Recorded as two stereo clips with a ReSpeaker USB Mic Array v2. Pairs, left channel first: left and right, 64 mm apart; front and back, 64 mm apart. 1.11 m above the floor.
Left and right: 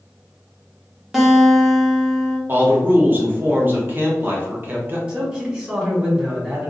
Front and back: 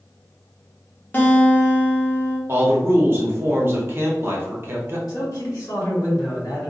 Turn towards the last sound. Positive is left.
turn(degrees=-20)